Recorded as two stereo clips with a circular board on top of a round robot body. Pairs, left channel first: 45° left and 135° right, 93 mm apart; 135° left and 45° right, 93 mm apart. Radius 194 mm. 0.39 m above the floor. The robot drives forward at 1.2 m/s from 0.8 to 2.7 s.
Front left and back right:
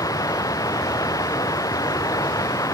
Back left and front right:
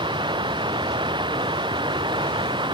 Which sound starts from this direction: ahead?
Running water, at 0.0 s.